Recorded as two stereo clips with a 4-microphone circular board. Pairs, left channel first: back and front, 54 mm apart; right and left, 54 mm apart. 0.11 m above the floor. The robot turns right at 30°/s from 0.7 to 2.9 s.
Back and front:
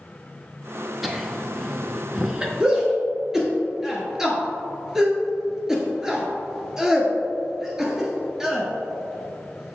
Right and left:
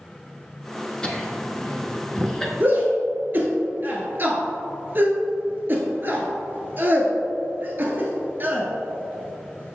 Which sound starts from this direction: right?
Laughter, at 1.0 s.